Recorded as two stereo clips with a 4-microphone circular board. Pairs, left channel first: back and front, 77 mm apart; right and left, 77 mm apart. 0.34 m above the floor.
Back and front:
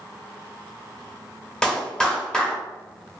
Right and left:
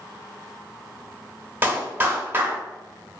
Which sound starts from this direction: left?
A clap, at 1.6 s.